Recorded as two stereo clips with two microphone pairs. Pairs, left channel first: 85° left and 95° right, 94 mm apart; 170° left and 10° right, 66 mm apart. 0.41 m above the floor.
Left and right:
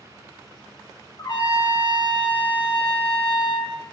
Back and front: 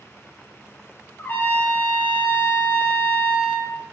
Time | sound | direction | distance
1.2 | a trumpet | 120° left | 0.8 m